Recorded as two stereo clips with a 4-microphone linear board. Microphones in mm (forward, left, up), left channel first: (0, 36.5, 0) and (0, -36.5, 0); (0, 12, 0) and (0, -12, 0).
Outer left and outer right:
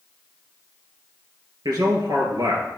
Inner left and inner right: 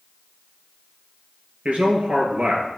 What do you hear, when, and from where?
1.6 s a man speaking: 65° right (ahead or behind), 2.5 m